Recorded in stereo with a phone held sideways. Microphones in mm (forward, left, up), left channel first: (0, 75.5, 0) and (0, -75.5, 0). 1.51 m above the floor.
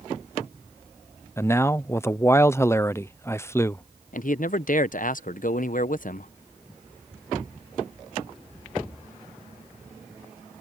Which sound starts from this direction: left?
A man speaking, at 4.1 s.